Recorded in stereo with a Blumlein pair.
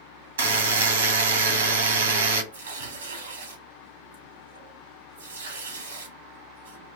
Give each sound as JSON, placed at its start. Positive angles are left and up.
{"t": 0.4, "sound": "a buzzer", "azimuth_deg": -65, "distance_m": 1.2}
{"t": 2.5, "sound": "tearing paper", "azimuth_deg": -65, "distance_m": 1.2}